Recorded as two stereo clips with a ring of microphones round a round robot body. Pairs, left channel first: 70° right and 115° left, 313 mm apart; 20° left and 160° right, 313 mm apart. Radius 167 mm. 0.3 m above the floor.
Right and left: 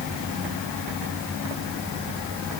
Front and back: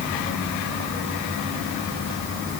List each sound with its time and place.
Only background noise.